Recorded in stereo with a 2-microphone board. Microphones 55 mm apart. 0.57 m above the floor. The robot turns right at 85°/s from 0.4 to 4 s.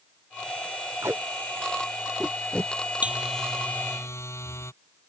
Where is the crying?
I don't hear crying.